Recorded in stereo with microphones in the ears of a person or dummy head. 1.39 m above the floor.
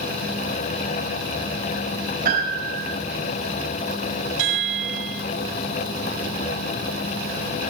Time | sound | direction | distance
2.2 | a piano | 55° right (ahead or behind) | 5.5 m
4.4 | a chime | 75° right (ahead or behind) | 6 m